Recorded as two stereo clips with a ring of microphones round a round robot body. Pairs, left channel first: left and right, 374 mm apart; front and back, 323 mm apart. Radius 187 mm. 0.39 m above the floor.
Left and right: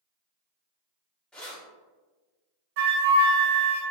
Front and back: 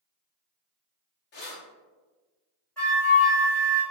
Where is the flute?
85° right, 1.4 m.